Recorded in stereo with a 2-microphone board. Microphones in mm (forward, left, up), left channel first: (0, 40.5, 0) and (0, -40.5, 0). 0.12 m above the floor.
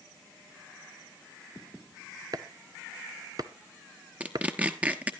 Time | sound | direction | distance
2.3 | chopping | 50° right (ahead or behind) | 0.7 m
4.2 | tearing paper | 15° right (ahead or behind) | 1.1 m